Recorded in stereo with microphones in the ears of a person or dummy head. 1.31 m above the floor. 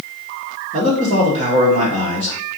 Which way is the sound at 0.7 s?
40° right (ahead or behind).